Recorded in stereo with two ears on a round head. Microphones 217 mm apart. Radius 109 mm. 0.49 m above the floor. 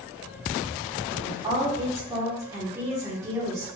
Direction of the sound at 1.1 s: 15° right (ahead or behind).